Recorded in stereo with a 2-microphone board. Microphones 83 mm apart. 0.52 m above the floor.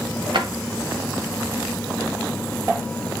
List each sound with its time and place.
0.3 s a drawer: 70° right (ahead or behind), 1.5 m